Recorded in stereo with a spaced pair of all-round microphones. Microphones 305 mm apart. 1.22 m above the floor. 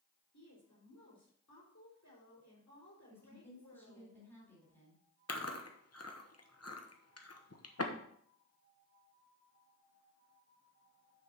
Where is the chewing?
55° left (ahead or behind), 1.0 m.